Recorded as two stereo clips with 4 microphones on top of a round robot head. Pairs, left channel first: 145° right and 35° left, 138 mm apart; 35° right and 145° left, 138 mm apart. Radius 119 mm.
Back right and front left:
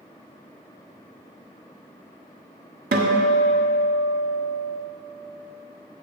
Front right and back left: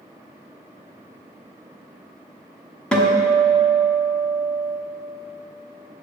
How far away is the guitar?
About 1.2 m.